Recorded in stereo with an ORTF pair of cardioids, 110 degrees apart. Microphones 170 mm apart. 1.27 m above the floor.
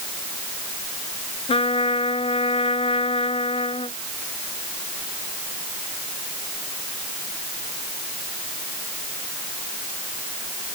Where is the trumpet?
35° left.